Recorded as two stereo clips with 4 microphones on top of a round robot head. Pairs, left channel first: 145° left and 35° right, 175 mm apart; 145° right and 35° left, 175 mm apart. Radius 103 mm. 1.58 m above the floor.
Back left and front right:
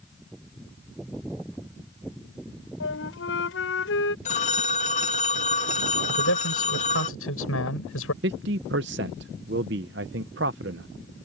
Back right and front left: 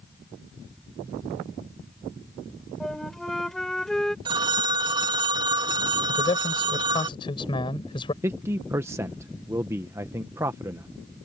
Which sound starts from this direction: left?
A phone ringing, at 4.2 s.